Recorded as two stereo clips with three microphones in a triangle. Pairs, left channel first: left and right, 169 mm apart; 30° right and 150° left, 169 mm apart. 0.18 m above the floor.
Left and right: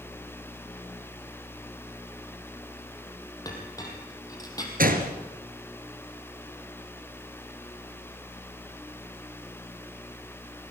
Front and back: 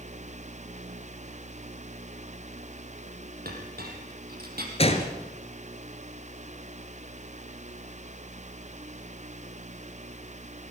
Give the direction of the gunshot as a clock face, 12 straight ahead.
3 o'clock.